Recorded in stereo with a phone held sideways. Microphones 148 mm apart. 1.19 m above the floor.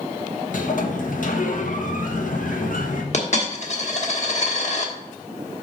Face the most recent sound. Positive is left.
turn(degrees=50)  # may be behind; listen again after turning